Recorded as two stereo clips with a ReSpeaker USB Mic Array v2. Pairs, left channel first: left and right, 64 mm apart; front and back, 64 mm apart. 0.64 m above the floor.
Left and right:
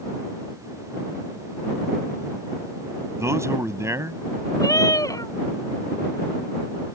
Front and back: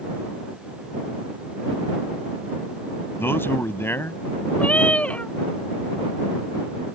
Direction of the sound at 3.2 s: 50° right.